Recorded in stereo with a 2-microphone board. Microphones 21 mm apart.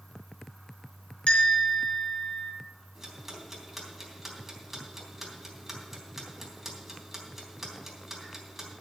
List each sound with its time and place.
1.3 s a bell: 70° left (ahead or behind), 4.5 m
3.0 s ticking: 10° right (ahead or behind), 3.5 m